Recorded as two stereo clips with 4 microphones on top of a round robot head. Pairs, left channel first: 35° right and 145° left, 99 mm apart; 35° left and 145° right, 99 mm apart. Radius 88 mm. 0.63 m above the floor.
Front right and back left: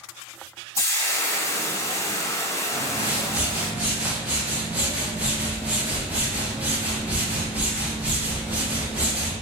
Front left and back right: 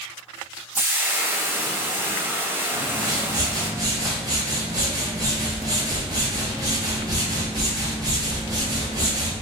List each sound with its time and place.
0.8 s frying: 85° right, 0.6 m
2.7 s a whoosh: 150° right, 1.2 m